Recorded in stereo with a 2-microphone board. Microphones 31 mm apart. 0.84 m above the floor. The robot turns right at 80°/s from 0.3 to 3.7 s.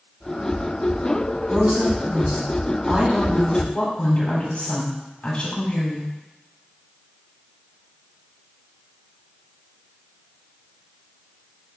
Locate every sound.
1.5 s a woman speaking: 140° right, 2.5 m; by 6.1 s 40° left, 2.5 m